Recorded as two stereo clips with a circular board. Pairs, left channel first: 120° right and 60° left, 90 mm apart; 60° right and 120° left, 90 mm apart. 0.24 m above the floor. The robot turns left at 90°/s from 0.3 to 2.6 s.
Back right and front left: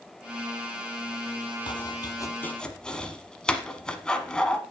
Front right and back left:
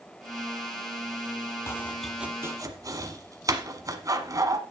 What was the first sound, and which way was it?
Chopping, 115° right.